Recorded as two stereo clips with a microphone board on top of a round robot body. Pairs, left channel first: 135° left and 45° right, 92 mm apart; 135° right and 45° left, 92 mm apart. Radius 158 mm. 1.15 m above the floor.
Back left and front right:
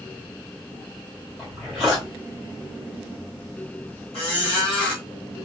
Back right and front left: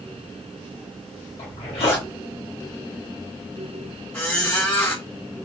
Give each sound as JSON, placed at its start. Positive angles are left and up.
{"t": 1.4, "sound": "a zipper", "azimuth_deg": -140, "distance_m": 2.0}
{"t": 4.1, "sound": "a squeak", "azimuth_deg": 155, "distance_m": 1.4}